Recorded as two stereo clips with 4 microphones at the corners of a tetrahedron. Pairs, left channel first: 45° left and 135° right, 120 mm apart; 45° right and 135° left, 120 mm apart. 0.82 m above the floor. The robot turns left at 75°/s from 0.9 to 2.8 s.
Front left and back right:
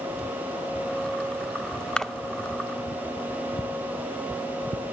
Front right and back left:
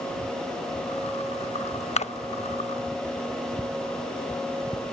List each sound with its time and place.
2.0 s a splash: 35° right, 0.6 m; by 2.1 s 50° right, 0.6 m